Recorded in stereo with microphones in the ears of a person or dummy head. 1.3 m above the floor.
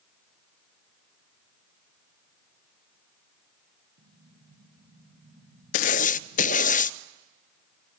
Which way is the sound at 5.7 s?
45° left (ahead or behind).